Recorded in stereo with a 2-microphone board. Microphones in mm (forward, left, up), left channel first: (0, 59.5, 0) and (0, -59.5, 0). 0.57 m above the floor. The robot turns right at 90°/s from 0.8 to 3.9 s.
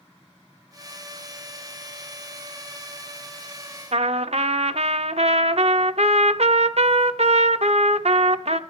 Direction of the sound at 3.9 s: 60° right (ahead or behind).